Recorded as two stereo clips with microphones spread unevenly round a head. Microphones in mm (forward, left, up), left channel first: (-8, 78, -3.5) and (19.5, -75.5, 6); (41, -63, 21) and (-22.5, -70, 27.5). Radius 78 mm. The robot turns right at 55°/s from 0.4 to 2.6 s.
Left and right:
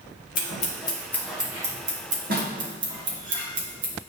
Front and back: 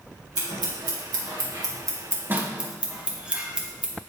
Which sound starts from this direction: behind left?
Scissors, at 0.3 s.